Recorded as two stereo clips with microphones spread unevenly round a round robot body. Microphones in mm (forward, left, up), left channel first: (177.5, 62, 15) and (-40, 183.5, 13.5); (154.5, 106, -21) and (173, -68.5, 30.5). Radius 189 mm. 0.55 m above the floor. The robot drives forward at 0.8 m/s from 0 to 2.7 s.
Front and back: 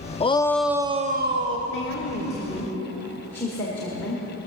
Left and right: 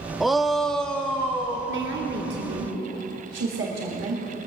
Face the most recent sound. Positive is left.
turn(degrees=-110)